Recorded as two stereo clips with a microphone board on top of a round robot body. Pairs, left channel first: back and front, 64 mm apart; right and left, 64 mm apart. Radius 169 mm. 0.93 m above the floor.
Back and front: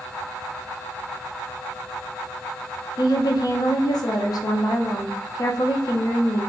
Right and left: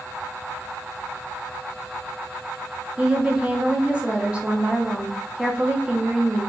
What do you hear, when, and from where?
3.0 s a woman speaking: 165° left, 0.7 m